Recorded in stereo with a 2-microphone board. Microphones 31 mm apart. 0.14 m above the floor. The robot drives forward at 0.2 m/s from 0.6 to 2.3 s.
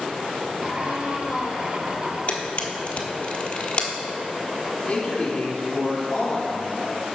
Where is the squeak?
10° right (ahead or behind), 2.5 m.